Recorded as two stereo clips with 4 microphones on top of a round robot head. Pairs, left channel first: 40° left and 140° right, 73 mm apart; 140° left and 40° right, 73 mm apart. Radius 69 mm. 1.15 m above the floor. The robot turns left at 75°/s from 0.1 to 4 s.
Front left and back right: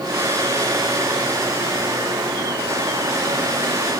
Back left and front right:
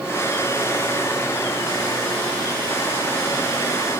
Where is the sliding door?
I don't hear a sliding door.